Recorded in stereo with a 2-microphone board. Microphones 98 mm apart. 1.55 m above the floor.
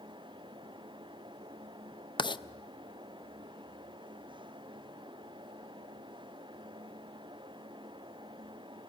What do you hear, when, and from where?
2.2 s writing: 50° left (ahead or behind), 0.6 m